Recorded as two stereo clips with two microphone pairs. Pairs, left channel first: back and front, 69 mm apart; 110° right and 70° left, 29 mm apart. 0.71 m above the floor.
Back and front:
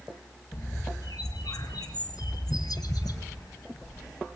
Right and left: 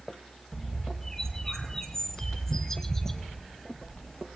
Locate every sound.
0.5 s a bird: 175° left, 1.4 m